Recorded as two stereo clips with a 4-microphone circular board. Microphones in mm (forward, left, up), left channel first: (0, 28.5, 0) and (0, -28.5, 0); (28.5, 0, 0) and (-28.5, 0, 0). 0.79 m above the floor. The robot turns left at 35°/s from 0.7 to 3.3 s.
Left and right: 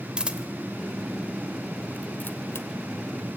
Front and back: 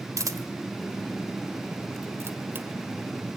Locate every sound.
0.2 s a camera shutter: 165° right, 1.5 m; by 2.7 s 130° left, 1.5 m